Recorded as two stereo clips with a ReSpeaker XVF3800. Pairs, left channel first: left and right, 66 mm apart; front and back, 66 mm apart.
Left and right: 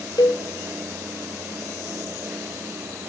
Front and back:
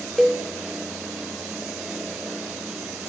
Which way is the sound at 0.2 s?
95° left.